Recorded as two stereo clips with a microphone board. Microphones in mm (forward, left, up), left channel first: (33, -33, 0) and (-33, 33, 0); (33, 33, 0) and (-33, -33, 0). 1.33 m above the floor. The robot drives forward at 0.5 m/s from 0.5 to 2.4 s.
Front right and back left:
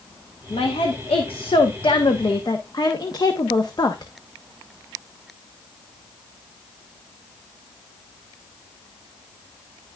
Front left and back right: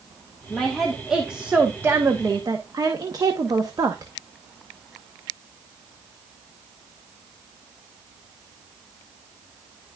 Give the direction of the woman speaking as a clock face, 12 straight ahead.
1 o'clock.